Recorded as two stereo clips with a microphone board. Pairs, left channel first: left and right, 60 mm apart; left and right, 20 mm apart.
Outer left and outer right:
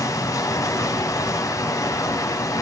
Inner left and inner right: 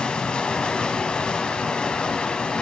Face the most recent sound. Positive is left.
turn(degrees=75)  # may be behind; listen again after turning